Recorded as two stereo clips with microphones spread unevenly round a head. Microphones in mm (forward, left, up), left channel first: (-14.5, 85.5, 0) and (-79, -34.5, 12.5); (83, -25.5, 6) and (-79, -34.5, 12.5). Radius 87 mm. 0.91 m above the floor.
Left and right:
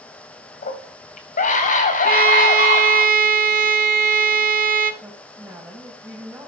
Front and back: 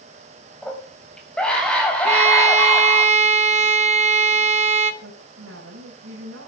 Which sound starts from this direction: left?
A scream, at 0.6 s.